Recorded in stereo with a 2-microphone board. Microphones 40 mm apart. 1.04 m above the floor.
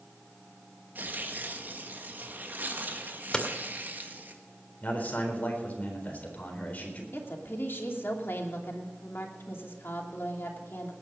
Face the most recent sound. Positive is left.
turn(degrees=70)  # may be behind; listen again after turning